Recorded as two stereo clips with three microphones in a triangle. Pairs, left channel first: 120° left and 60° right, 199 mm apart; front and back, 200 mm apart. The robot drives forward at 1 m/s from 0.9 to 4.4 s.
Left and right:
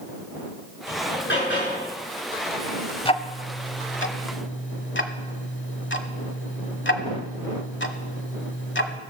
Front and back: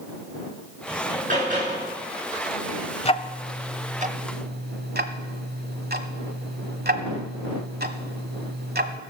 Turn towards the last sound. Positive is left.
turn(degrees=140)